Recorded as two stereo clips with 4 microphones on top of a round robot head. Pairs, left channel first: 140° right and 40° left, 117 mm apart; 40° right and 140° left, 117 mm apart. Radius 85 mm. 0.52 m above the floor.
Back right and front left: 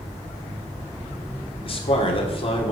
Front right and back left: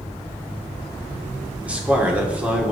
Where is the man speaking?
145° right, 1.8 m.